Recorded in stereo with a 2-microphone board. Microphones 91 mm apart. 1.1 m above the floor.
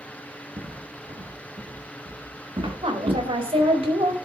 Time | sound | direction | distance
0.6 | footsteps | 75° right (ahead or behind) | 4.5 m
2.8 | a woman speaking | 90° right | 4.5 m